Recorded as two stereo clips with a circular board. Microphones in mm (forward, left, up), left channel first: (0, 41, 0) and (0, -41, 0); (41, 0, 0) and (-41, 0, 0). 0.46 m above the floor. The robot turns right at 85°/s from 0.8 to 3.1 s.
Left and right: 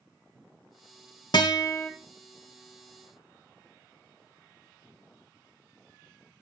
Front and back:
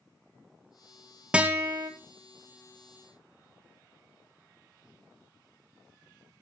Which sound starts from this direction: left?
A guitar, at 1.3 s.